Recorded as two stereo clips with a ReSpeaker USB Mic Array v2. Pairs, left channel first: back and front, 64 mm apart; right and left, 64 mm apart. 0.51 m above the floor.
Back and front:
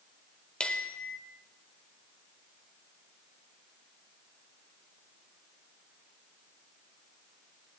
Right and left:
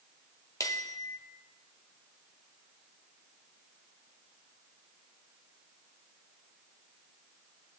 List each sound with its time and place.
0.6 s a bell: 110° right, 0.9 m